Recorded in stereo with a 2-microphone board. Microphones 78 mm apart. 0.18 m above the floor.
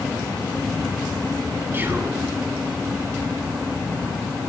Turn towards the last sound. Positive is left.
turn(degrees=-30)  # may be behind; listen again after turning